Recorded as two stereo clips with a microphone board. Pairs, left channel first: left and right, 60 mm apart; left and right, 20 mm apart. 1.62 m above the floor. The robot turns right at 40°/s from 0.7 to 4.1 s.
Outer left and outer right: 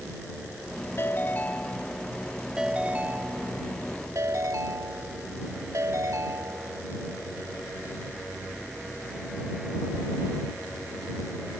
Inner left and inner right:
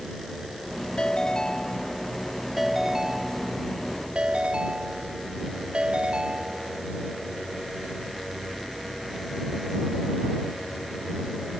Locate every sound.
1.0 s a ringtone: 130° left; by 6.8 s 105° right